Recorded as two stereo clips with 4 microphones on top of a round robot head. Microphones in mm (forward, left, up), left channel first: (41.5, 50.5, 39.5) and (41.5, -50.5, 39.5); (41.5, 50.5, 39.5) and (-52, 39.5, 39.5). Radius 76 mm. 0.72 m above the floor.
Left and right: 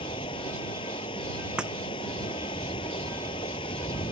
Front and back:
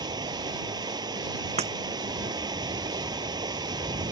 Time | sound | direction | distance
0.0 | running water | 140° left | ?
1.6 | breaking glass | 175° right | ?